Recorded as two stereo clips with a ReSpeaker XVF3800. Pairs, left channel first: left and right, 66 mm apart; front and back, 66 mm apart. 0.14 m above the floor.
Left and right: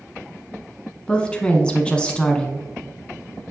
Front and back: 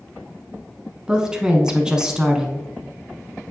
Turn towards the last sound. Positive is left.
turn(degrees=125)